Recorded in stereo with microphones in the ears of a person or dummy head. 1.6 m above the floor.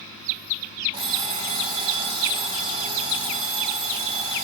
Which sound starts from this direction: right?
An alarm clock, at 0.9 s.